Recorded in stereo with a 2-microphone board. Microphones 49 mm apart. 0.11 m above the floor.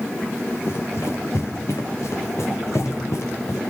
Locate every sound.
0.7 s running footsteps: 60° left (ahead or behind), 5 m; by 3.6 s 80° left, 5.5 m